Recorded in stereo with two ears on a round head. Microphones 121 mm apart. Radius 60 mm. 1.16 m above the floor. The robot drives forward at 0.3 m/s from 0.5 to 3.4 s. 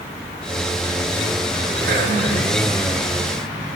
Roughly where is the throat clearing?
Right.